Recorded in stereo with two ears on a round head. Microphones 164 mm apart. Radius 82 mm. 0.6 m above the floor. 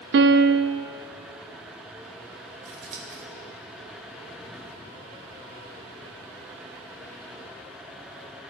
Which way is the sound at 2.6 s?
45° right (ahead or behind).